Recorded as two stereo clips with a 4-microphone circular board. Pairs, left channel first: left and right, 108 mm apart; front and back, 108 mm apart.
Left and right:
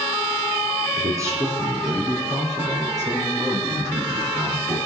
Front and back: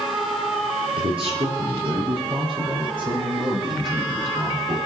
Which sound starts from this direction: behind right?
A man speaking, at 1.0 s.